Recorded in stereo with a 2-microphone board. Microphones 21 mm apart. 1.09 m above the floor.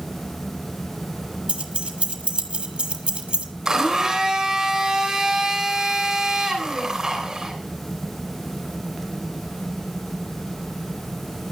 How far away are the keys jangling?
About 1.7 m.